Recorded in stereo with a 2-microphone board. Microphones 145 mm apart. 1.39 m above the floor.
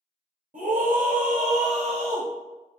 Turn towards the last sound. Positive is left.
turn(degrees=-40)  # may be behind; listen again after turning